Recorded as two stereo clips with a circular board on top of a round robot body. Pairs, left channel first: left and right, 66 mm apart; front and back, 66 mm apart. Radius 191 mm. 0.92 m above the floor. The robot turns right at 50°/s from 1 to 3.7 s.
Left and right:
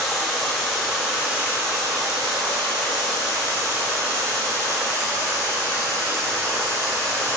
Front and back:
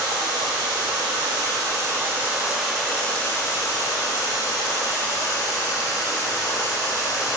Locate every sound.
0.0 s running water: straight behind, 1.0 m; by 7.4 s 45° right, 1.0 m